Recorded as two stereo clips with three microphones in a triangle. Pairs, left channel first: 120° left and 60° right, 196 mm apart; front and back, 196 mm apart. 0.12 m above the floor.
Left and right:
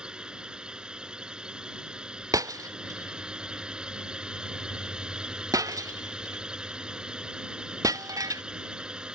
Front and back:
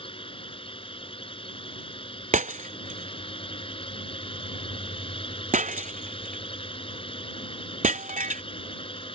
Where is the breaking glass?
130° right.